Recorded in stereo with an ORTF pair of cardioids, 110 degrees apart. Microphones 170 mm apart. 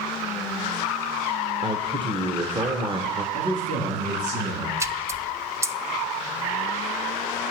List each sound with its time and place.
1.6 s a man speaking: 35° right, 1.0 m
3.3 s a man speaking: 50° right, 4 m
4.8 s a splash: 20° right, 0.6 m